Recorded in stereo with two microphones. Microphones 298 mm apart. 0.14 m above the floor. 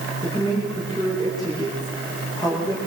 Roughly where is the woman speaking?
Centre.